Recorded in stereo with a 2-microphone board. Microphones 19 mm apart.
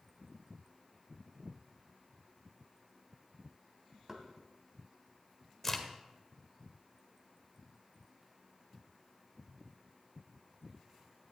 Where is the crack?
15° left (ahead or behind), 1.8 m.